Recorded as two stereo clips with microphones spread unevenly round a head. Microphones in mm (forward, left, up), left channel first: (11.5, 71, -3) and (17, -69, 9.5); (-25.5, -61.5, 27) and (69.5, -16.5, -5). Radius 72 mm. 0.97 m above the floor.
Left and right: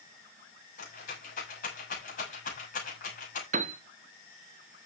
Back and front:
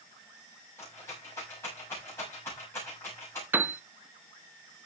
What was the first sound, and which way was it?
A rattle, 130° left.